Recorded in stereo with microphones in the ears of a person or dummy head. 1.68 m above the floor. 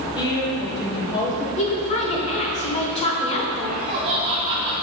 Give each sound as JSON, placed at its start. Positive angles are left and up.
{"t": 0.1, "sound": "a woman speaking", "side_deg": 30, "distance_m": 1.4}
{"t": 1.6, "sound": "a woman speaking", "side_deg": 25, "distance_m": 0.9}
{"t": 3.7, "sound": "laughter", "side_deg": -30, "distance_m": 0.7}